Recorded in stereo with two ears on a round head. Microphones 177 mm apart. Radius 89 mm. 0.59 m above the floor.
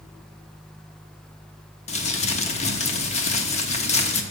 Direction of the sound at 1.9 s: 35° left (ahead or behind).